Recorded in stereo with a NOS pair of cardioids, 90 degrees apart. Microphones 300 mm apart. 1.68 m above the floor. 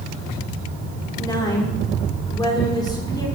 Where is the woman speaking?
15° left, 4.5 m.